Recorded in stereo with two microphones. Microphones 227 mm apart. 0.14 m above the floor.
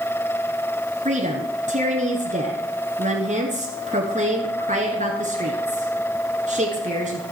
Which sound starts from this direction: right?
A woman speaking, at 1.1 s.